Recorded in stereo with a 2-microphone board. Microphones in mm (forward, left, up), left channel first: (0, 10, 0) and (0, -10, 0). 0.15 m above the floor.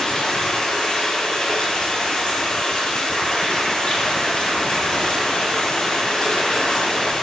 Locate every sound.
0.0 s running water: 55° left (ahead or behind), 3.5 m